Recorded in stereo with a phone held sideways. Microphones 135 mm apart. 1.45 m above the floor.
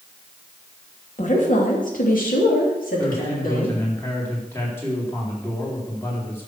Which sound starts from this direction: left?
A woman speaking, at 1.2 s.